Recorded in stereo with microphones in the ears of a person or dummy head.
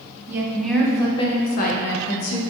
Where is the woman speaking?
10° right (ahead or behind), 0.7 m; by 2.4 s 75° left (ahead or behind), 0.9 m.